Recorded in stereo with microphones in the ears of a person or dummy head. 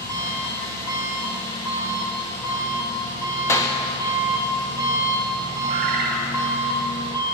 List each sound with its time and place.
0.0 s an engine running: 20° left (ahead or behind), 1.5 m
3.5 s a clap: 15° left (ahead or behind), 0.6 m
5.7 s a bird: 30° right (ahead or behind), 1.1 m